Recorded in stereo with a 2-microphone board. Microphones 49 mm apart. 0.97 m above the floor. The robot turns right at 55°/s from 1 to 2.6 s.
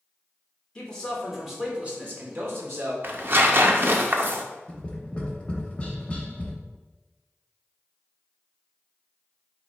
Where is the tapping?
25° left (ahead or behind), 0.8 m.